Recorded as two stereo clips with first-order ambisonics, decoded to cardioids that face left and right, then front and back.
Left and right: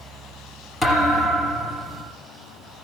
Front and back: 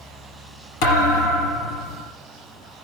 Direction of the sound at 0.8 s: 5° left.